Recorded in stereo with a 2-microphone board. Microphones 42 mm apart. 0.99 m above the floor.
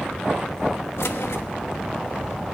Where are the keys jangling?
75° left (ahead or behind), 1.0 m.